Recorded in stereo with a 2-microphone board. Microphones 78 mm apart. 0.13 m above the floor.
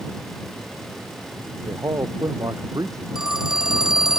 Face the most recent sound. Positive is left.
turn(degrees=-10)  # may be behind; listen again after turning